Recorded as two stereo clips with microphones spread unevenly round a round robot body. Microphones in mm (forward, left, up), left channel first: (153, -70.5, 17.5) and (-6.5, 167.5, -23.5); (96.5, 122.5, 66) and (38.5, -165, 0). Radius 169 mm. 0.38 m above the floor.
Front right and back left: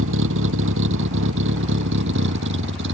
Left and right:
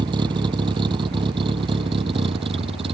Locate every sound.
0.0 s a vehicle: straight behind; by 3.0 s 175° right